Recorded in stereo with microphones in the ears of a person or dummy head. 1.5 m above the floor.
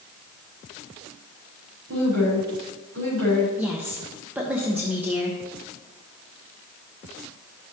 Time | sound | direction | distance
1.9 | a woman speaking | 85° right | 4 m
3.6 | a woman speaking | 10° right (ahead or behind) | 1.0 m